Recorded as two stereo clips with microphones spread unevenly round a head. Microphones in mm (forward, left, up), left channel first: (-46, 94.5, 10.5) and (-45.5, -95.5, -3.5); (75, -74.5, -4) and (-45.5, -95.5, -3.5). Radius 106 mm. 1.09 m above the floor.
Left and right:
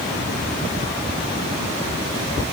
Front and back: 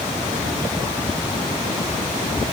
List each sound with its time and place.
Only background noise.